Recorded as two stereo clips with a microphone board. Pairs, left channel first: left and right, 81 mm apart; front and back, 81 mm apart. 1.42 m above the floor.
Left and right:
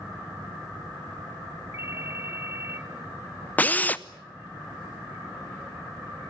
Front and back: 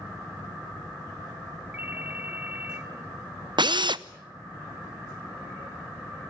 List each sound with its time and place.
1.7 s a ringtone: 125° right, 1.0 m
3.6 s a drill: 160° left, 0.7 m